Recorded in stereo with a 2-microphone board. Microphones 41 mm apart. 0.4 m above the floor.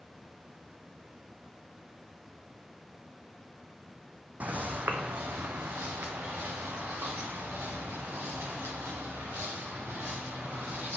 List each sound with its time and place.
4.4 s footsteps: 40° right (ahead or behind), 0.8 m; by 11.0 s 75° right (ahead or behind), 4.5 m